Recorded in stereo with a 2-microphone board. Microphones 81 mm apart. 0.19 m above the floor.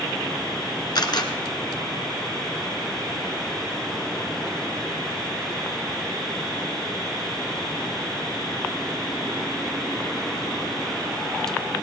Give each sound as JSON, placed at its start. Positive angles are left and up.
{"t": 0.9, "sound": "a camera shutter", "side_deg": 60, "distance_m": 1.6}